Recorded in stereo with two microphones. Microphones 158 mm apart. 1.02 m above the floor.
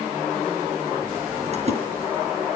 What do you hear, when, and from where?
1.5 s a splash: 45° right (ahead or behind), 4.5 m